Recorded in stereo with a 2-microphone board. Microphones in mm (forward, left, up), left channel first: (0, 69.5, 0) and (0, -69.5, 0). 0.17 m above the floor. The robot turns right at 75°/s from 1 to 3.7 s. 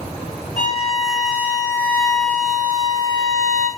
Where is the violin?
70° left, 1.3 m; by 3.7 s 90° right, 1.3 m.